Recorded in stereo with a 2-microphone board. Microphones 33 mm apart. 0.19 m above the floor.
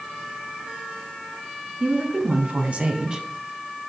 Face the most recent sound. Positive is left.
turn(degrees=-20)  # may be behind; listen again after turning